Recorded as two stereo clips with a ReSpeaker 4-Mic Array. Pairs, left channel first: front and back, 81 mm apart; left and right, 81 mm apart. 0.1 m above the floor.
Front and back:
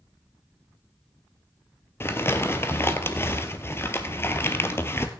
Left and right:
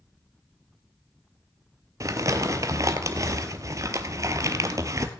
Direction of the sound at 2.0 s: 50° right.